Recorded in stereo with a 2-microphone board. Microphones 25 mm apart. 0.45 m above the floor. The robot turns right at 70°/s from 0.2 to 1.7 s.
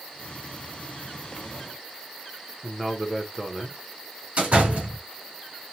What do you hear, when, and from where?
2.6 s a man speaking: 10° right (ahead or behind), 1.0 m
4.4 s a door slam: 55° right (ahead or behind), 4.5 m